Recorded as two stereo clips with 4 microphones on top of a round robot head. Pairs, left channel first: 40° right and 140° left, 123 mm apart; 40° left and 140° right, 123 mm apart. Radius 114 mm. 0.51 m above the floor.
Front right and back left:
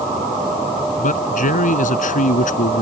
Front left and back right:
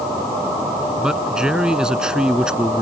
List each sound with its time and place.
1.0 s a man speaking: 55° right